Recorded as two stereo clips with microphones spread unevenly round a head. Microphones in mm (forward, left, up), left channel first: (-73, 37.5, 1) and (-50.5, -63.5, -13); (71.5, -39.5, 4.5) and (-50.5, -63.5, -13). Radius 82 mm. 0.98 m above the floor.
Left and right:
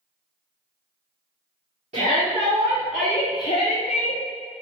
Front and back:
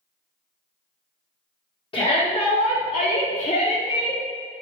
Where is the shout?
35° right, 1.0 m; by 4.2 s 85° left, 0.9 m.